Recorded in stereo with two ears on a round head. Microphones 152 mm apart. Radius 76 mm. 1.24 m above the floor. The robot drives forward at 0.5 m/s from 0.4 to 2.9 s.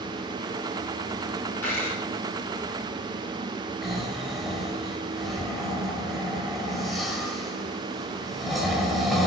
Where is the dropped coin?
10° left (ahead or behind), 7 m.